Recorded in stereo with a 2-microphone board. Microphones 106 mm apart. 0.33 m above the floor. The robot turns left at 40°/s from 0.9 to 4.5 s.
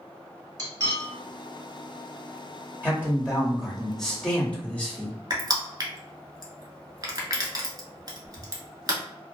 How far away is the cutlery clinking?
About 0.9 m.